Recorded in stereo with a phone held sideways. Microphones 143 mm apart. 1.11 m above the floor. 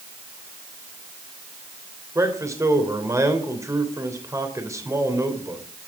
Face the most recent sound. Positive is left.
turn(degrees=-20)  # may be behind; listen again after turning